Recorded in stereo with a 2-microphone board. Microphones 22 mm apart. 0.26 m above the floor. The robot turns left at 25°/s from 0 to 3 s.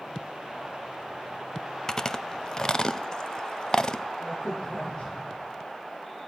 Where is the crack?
40° left (ahead or behind), 9.5 m.